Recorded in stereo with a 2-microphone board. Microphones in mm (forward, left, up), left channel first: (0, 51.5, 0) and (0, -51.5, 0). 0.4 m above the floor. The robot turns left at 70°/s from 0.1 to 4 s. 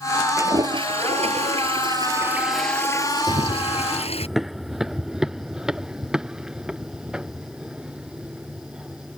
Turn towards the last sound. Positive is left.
turn(degrees=-10)  # may be behind; listen again after turning